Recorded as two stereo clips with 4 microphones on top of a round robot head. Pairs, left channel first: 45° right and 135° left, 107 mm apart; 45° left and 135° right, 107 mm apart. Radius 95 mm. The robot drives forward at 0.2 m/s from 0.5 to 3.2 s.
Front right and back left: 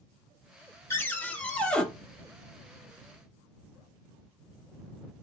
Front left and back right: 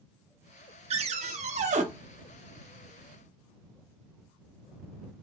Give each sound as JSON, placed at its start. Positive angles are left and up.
{"t": 0.9, "sound": "a cupboard door", "azimuth_deg": -110, "distance_m": 0.6}